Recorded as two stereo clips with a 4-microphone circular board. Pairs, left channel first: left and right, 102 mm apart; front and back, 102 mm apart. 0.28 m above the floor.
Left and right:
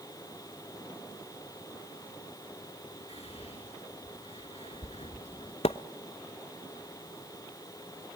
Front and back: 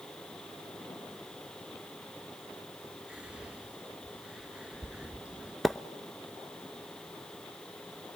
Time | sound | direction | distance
3.1 | whispering | 100° left | 3 m
5.6 | a splash | 90° left | 0.7 m